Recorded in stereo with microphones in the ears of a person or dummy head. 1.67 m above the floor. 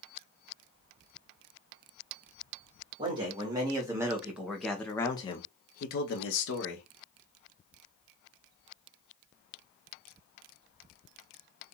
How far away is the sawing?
I don't hear sawing.